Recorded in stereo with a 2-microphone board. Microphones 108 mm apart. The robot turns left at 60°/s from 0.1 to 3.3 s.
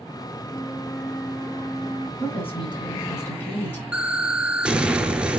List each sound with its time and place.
0.5 s a flute: 20° left, 1.1 m; by 2.1 s 75° right, 1.1 m
2.2 s a woman speaking: 90° left, 3 m; by 3.8 s 20° left, 3 m
3.9 s an explosion: 10° right (ahead or behind), 0.7 m